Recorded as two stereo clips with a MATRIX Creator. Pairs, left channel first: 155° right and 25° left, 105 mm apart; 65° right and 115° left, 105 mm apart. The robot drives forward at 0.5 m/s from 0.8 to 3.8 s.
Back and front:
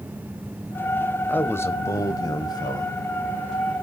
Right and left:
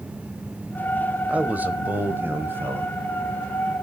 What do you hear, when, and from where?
1.3 s a man speaking: 165° left, 0.9 m; by 3.8 s 175° left, 1.8 m